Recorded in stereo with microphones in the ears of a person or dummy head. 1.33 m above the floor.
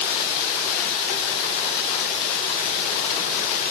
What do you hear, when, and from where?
Only background noise.